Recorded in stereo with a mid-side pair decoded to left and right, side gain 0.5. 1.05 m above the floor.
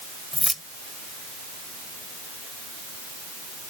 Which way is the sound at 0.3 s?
5° left.